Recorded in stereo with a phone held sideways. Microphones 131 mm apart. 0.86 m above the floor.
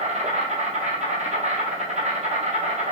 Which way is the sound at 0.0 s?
65° right (ahead or behind).